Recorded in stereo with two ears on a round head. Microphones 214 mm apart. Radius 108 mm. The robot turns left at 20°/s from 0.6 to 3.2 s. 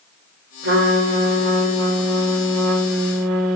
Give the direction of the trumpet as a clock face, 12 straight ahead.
2 o'clock.